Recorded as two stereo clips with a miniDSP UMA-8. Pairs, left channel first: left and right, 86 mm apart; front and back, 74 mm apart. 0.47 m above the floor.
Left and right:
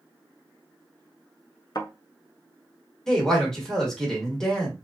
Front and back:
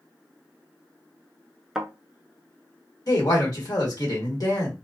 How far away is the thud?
About 0.5 m.